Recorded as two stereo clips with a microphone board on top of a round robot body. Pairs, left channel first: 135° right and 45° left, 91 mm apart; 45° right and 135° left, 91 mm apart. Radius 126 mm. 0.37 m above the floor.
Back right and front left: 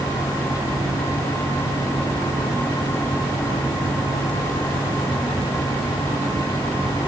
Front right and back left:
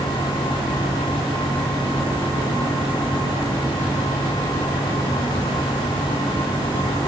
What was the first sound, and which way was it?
Only background noise.